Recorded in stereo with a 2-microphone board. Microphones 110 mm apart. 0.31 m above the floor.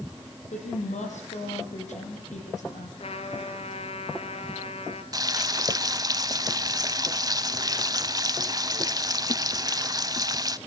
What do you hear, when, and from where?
0.5 s a woman speaking: 80° left, 10 m
3.0 s a trumpet: 60° left (ahead or behind), 2.5 m
5.1 s frying: 30° right (ahead or behind), 0.9 m